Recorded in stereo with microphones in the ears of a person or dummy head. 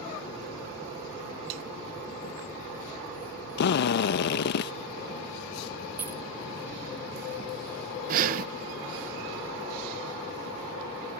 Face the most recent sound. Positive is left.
turn(degrees=-40)  # may be behind; listen again after turning